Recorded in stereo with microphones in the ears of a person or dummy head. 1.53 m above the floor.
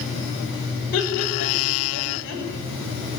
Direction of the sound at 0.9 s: 60° left (ahead or behind).